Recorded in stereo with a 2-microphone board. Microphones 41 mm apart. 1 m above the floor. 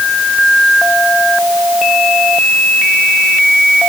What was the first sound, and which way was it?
Only background noise.